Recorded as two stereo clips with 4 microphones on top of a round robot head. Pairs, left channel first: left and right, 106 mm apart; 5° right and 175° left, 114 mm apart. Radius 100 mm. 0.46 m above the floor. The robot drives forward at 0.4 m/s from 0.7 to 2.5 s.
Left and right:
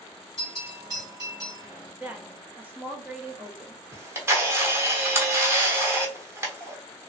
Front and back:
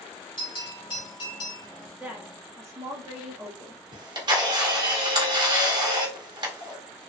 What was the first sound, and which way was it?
A bell, 35° right.